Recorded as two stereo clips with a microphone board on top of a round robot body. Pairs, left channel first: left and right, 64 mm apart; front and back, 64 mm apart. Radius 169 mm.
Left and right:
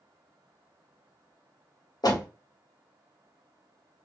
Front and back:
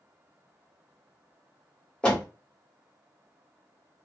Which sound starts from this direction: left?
A door slam, at 2.0 s.